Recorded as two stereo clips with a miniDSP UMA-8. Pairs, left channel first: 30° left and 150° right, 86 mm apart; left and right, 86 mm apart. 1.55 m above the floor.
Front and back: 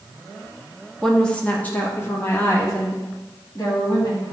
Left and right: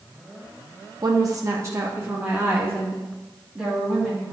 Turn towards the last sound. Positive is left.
turn(degrees=-15)